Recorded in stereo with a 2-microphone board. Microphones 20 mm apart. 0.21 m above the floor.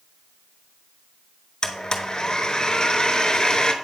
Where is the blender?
35° left (ahead or behind), 0.6 m.